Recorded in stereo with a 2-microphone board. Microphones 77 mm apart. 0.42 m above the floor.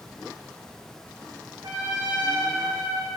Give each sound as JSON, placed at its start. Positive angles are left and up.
{"t": 1.6, "sound": "a trumpet", "side_deg": -60, "distance_m": 6.0}